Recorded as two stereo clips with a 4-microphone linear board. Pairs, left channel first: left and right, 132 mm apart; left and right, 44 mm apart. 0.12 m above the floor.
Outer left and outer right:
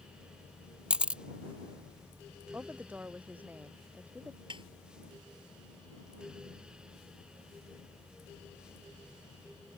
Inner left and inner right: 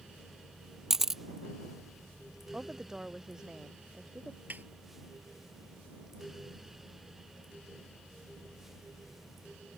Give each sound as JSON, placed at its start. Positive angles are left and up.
{"t": 0.9, "sound": "a camera shutter", "side_deg": -10}
{"t": 2.5, "sound": "a woman speaking", "side_deg": -15}
{"t": 4.5, "sound": "a snare drum", "side_deg": -45}